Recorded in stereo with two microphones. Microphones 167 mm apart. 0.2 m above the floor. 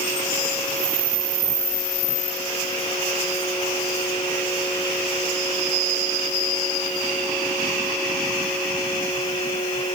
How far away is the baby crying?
I don't hear a baby crying.